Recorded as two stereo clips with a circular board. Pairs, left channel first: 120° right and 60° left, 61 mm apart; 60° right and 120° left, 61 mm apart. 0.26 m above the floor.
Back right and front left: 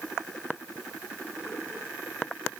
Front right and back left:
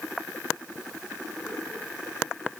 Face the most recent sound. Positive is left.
No sound to turn to.